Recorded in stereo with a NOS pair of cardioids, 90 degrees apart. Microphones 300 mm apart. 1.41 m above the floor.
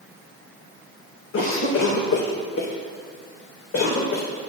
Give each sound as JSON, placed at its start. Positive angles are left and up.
{"t": 1.3, "sound": "a cough", "azimuth_deg": 45, "distance_m": 2.0}